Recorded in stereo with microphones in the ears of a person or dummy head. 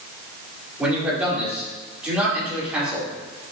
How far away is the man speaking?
About 4 m.